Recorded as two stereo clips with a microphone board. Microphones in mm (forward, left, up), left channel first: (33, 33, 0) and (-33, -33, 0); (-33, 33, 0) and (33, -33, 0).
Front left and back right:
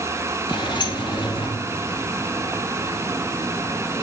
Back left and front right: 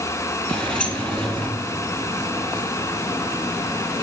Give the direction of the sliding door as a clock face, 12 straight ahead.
10 o'clock.